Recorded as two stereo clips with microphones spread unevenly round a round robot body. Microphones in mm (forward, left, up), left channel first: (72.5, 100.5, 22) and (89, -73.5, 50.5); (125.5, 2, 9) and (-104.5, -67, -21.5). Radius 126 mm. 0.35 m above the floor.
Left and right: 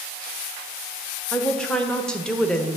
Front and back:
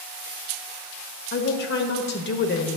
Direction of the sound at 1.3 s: 25° left.